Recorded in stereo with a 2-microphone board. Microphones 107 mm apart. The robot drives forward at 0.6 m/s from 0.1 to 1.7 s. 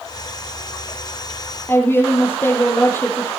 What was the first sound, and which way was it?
A woman speaking, 20° left (ahead or behind).